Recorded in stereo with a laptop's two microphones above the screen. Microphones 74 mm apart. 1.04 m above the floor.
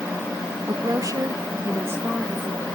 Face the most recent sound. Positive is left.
turn(degrees=-20)  # may be behind; listen again after turning